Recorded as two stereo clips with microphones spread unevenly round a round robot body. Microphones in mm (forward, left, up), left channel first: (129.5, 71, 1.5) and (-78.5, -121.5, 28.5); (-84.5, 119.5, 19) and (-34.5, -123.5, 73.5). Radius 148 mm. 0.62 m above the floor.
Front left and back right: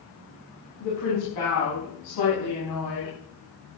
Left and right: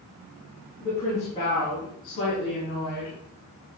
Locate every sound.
0.8 s a woman speaking: 35° left, 6 m; by 3.1 s 60° left, 6 m